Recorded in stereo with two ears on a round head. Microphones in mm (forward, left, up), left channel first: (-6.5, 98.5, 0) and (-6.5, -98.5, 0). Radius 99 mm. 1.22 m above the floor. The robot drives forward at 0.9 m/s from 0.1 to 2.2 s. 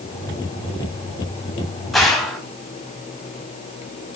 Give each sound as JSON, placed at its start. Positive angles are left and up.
{"t": 1.9, "sound": "a gunshot", "side_deg": 0, "distance_m": 2.5}